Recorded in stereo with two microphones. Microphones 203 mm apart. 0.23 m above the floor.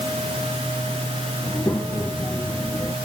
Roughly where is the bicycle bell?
I don't hear a bicycle bell.